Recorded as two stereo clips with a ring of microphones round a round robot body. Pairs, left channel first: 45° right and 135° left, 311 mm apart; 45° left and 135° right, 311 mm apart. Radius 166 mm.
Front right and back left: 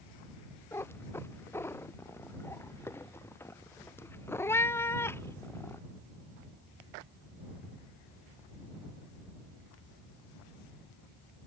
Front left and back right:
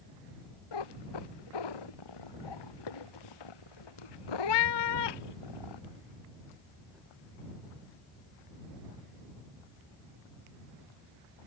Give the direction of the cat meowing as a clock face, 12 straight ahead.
11 o'clock.